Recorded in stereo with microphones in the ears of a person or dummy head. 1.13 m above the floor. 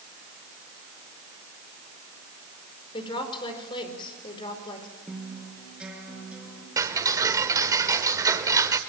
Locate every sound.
2.9 s a woman speaking: 25° left (ahead or behind), 4.5 m
5.1 s a guitar: 10° right (ahead or behind), 4.5 m
6.8 s ticking: 15° right (ahead or behind), 1.3 m